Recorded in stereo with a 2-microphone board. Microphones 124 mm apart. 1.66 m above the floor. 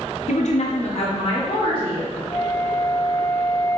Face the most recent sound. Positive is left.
turn(degrees=45)  # may be behind; listen again after turning